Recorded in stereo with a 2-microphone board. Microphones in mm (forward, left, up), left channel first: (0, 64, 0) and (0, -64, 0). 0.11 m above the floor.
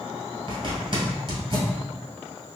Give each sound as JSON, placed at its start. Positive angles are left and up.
{"t": 0.5, "sound": "a zipper", "side_deg": -45, "distance_m": 1.4}